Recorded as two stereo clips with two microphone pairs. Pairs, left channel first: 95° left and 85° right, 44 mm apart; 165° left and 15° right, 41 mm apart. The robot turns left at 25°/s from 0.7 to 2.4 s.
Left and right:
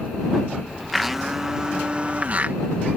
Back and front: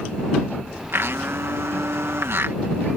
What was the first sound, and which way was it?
A blender, 5° left.